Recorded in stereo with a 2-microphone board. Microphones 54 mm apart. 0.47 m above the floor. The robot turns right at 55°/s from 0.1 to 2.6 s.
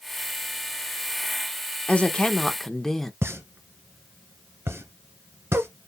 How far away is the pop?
About 1.2 m.